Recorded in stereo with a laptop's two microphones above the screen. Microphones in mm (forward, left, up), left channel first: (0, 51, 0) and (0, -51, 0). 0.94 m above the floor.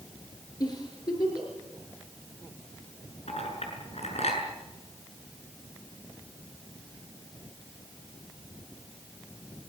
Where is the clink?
80° left, 7 m.